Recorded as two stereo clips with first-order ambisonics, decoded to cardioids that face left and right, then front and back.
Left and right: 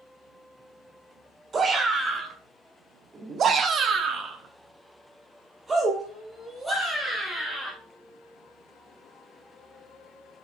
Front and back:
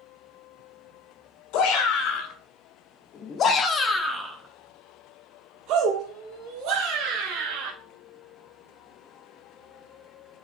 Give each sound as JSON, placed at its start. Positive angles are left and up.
{"t": 1.5, "sound": "a shout", "azimuth_deg": -20, "distance_m": 1.7}